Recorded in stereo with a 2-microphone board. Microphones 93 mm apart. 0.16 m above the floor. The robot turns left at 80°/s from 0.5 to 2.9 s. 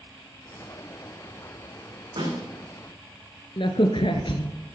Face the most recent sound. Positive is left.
turn(degrees=60)  # may be behind; listen again after turning